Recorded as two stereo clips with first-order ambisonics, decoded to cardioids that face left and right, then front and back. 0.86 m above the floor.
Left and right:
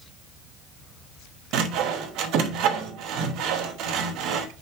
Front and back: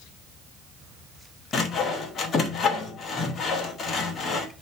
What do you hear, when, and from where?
1.5 s sawing: 60° right, 1.1 m